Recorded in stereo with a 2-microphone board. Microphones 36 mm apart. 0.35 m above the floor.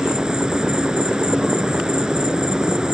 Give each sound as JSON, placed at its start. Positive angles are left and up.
{"t": 0.0, "sound": "an insect", "side_deg": -20}